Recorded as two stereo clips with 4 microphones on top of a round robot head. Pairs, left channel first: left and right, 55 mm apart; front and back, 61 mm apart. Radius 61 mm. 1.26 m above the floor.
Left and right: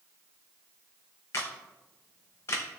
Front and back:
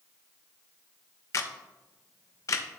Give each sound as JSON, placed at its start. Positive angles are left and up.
{"t": 1.3, "sound": "a camera shutter", "azimuth_deg": 35, "distance_m": 0.8}